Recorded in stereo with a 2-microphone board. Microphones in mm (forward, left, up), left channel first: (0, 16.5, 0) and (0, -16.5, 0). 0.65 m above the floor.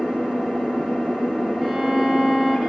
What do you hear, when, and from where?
0.0 s an engine running: 30° right (ahead or behind), 8 m
1.6 s a violin: 15° right (ahead or behind), 4.5 m